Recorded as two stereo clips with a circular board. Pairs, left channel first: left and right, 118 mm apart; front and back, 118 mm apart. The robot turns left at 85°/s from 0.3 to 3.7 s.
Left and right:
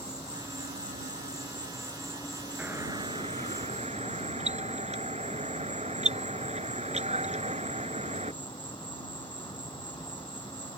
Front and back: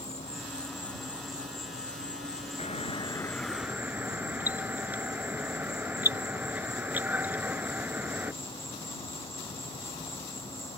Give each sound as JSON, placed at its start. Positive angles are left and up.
{"t": 0.0, "sound": "an insect", "azimuth_deg": -30}
{"t": 2.6, "sound": "a doorbell", "azimuth_deg": -10}